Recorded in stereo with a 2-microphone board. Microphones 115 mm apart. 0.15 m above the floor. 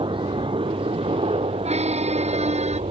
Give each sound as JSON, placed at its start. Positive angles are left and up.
{"t": 0.0, "sound": "a helicopter", "side_deg": -50}
{"t": 1.6, "sound": "a squeak", "side_deg": -70}